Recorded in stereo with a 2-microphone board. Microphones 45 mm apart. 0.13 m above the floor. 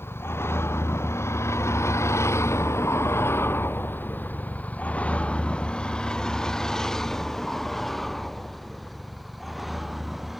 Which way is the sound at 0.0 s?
60° left (ahead or behind).